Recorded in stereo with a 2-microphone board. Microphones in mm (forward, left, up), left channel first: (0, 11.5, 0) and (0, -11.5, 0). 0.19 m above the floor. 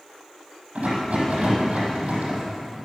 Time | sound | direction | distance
0.8 | a rattle | 75° right (ahead or behind) | 5.5 m